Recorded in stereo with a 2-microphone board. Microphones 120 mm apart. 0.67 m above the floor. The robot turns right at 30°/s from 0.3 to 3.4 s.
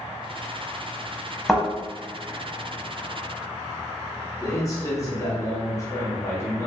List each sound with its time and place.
1.5 s a thud: 5° left (ahead or behind), 1.2 m; by 1.6 s centre (ahead or behind), 1.2 m
4.4 s a man speaking: 25° left (ahead or behind), 1.1 m